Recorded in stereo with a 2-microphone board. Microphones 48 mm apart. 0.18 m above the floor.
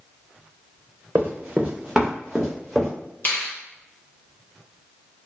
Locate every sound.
1.1 s running footsteps: 40° right (ahead or behind), 0.8 m; by 2.9 s 5° left (ahead or behind), 1.6 m
3.2 s a finger snap: 40° left (ahead or behind), 1.1 m